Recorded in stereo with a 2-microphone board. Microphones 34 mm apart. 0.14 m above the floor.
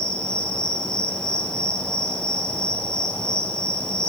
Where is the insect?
25° left (ahead or behind), 1.9 m.